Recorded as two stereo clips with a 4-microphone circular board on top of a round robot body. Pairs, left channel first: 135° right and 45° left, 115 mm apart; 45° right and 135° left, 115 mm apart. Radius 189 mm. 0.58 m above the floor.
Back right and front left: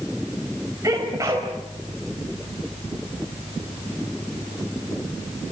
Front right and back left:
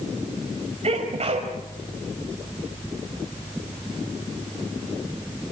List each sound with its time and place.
0.8 s a sneeze: 110° left, 4 m